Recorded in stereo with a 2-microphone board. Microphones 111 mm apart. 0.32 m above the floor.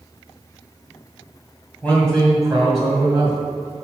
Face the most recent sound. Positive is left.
turn(degrees=-25)  # may be behind; listen again after turning